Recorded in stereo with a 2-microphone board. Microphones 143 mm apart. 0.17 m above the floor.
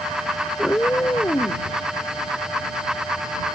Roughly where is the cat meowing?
Centre.